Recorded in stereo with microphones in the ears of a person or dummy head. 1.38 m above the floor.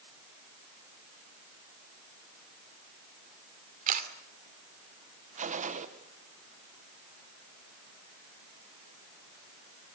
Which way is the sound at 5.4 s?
40° right (ahead or behind).